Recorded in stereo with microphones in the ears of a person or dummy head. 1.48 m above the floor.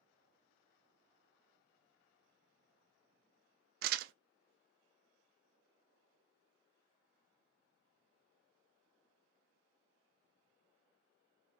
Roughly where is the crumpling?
Right.